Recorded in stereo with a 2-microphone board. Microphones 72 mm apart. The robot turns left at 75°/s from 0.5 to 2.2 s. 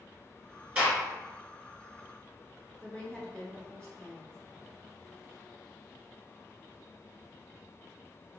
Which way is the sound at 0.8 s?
20° right (ahead or behind).